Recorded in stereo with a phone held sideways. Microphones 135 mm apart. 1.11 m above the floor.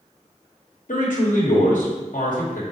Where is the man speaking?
75° left (ahead or behind), 1.0 m.